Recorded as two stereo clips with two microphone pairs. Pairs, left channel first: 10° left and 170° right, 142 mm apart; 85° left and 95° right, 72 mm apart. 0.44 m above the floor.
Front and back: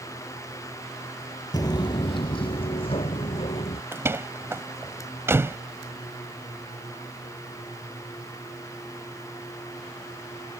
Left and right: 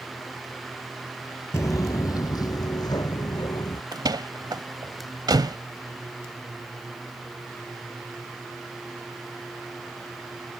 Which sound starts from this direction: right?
A door slam, at 3.9 s.